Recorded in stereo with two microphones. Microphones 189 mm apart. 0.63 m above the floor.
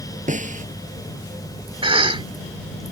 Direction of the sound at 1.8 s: 30° right (ahead or behind).